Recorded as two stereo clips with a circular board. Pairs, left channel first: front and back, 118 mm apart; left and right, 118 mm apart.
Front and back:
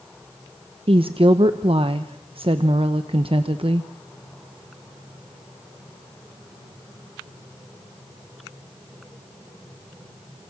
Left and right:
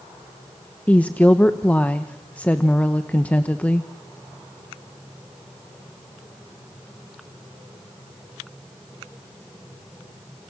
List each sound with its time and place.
0.9 s a woman speaking: 165° left, 1.0 m